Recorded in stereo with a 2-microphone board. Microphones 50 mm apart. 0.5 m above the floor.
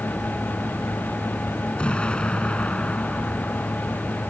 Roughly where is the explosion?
Left.